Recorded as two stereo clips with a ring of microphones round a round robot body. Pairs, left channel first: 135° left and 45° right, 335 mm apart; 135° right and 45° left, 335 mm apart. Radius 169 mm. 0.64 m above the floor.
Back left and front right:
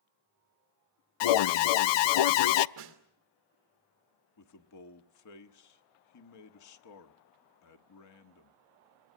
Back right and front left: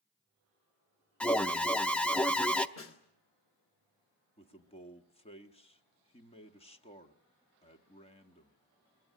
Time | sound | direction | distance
1.2 | an alarm | 140° left | 0.6 m
2.8 | a snare drum | 85° right | 2.5 m
4.4 | a man speaking | 155° left | 1.5 m